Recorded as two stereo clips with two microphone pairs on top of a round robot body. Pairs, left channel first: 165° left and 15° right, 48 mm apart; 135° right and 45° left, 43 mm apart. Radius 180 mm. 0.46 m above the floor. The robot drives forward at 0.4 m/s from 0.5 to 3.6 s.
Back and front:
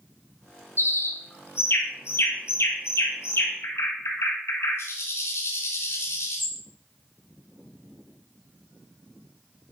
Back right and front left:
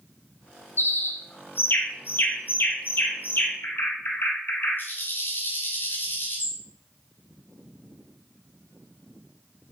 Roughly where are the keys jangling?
No keys jangling in this recording.